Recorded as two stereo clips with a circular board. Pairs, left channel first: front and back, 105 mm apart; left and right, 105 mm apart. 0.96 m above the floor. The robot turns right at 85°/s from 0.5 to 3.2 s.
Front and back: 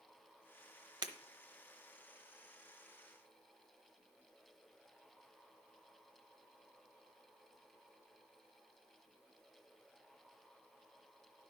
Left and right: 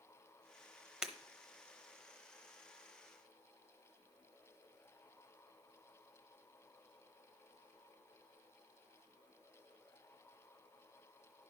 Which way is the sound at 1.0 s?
175° right.